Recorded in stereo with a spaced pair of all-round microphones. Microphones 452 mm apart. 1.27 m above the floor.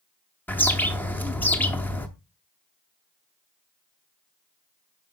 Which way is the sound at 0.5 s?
5° left (ahead or behind).